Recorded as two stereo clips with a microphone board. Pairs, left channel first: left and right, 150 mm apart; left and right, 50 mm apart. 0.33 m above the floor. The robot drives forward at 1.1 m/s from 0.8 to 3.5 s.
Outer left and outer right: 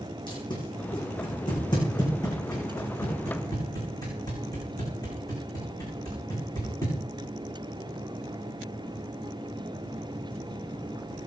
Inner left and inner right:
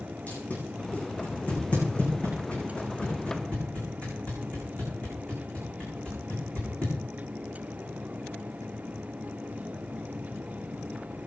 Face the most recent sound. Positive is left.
turn(degrees=25)  # may be behind; listen again after turning